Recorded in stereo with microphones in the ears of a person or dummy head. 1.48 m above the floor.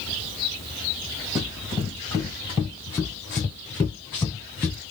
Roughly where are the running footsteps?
Centre.